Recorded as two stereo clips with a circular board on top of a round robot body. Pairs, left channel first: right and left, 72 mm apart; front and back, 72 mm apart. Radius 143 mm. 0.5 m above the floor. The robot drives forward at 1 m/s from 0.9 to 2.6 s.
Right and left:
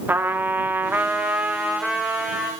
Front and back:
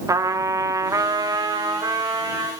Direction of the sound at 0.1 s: 150° left.